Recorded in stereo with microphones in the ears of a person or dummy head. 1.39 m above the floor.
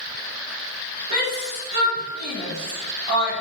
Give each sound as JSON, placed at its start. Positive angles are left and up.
{"t": 1.1, "sound": "a shout", "side_deg": -35, "distance_m": 4.5}